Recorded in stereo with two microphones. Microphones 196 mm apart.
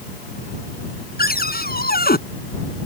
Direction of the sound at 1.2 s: 50° left (ahead or behind).